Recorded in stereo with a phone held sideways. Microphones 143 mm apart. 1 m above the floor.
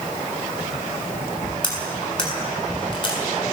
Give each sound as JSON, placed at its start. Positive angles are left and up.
{"t": 1.6, "sound": "cutlery clinking", "side_deg": 30, "distance_m": 6.5}